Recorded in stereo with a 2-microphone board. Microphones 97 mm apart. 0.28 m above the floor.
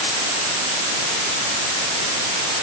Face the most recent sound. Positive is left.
No sound to turn to.